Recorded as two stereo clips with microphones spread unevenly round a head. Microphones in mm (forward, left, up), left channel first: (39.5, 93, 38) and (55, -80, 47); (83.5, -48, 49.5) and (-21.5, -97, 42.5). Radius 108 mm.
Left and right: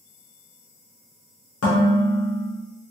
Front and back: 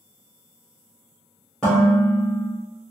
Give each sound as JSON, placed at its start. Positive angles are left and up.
{"t": 1.6, "sound": "dishes clattering", "azimuth_deg": 110, "distance_m": 1.1}